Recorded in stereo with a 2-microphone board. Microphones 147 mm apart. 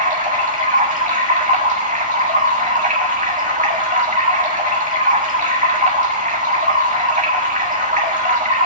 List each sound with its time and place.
0.0 s running water: 60° right (ahead or behind), 1.8 m